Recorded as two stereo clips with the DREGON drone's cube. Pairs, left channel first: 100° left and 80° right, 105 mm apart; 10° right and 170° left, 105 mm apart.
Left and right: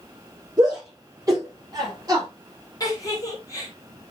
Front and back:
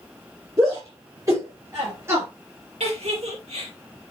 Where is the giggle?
155° left, 2.5 m.